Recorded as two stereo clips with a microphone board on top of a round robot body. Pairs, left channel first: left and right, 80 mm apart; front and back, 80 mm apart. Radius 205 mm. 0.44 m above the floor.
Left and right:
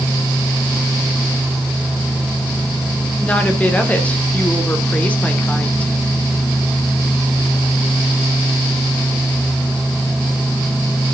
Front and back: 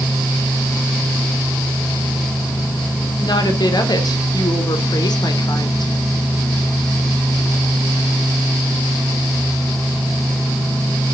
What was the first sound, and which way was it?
A woman speaking, 15° left.